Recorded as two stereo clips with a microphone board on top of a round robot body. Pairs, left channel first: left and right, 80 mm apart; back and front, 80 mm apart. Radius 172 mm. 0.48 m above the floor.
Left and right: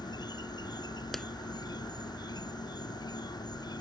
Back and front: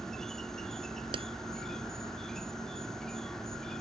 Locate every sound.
0.0 s an insect: 95° left
1.1 s a clap: 5° left